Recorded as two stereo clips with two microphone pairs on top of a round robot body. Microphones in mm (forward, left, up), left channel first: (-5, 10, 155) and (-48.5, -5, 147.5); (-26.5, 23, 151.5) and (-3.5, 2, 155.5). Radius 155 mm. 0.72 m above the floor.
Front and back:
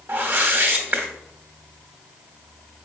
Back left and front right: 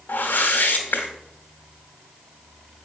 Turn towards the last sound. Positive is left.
turn(degrees=150)